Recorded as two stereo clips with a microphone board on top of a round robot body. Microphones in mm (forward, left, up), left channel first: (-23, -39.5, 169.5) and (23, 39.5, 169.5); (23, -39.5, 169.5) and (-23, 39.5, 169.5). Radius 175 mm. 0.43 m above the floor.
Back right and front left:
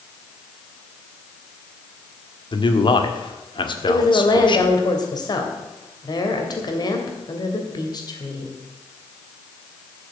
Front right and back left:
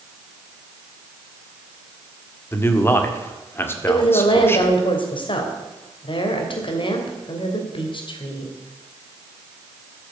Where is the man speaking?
120° right, 1.9 m.